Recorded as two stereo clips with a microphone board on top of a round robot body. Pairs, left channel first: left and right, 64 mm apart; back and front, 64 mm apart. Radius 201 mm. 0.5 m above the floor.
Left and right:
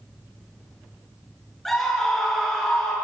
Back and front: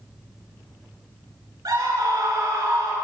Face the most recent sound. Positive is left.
turn(degrees=5)